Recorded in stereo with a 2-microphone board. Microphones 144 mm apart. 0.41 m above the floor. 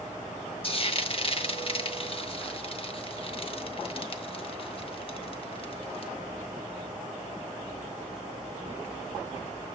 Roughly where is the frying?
Left.